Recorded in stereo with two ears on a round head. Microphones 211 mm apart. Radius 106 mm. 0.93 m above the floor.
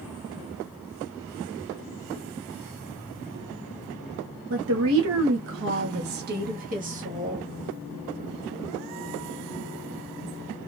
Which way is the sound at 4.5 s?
60° right (ahead or behind).